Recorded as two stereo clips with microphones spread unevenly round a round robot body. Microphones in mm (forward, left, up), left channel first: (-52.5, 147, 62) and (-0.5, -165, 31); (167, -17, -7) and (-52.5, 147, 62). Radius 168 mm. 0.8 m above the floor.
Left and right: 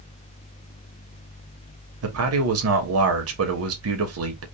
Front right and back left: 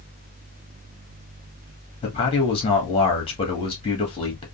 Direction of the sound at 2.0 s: 90° right.